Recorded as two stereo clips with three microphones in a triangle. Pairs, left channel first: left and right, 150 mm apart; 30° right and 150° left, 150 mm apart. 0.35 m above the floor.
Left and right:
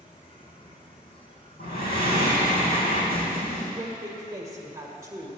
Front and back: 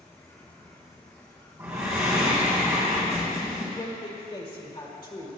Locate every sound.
0.0 s an insect: 40° left, 1.5 m
1.6 s breathing: 80° left, 3.5 m
3.8 s a woman speaking: 40° right, 1.5 m